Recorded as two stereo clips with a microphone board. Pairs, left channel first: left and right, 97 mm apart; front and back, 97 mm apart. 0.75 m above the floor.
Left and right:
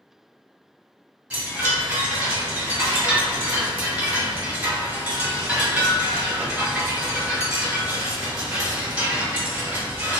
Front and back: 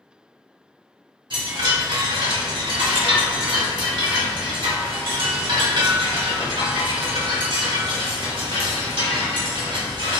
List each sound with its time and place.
1.3 s a chime: 165° right, 1.6 m